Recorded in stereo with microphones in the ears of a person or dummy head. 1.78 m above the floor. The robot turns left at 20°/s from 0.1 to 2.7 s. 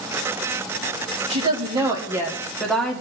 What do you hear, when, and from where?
1.3 s a woman speaking: 30° right (ahead or behind), 2.5 m; by 3.0 s centre (ahead or behind), 2.5 m